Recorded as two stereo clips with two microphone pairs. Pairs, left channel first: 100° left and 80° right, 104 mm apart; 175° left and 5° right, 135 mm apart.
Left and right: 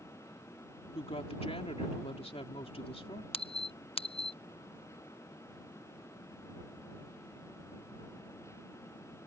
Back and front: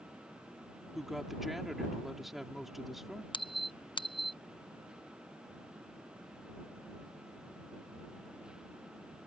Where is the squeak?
120° left.